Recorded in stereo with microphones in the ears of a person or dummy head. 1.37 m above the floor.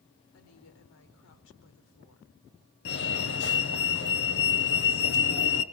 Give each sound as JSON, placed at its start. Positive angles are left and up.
{"t": 0.3, "sound": "a woman speaking", "side_deg": 75, "distance_m": 4.0}
{"t": 2.9, "sound": "a fire alarm", "side_deg": 60, "distance_m": 1.8}